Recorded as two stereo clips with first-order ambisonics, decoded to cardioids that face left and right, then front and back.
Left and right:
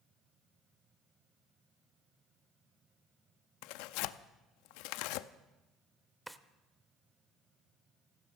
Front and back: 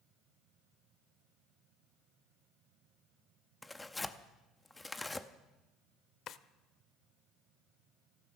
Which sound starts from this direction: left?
Tearing paper, at 3.6 s.